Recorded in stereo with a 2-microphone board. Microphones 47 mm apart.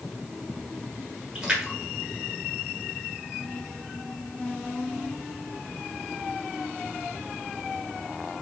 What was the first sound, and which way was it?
A splash, 15° right (ahead or behind).